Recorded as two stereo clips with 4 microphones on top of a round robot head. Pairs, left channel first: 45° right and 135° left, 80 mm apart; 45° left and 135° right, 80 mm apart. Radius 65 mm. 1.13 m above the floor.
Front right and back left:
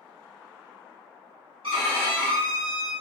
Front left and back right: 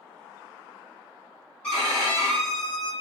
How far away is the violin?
About 1.4 m.